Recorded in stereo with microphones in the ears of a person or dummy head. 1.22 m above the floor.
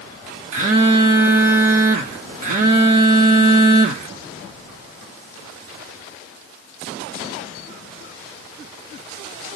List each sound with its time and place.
0.5 s a phone buzzing: 45° right (ahead or behind), 0.8 m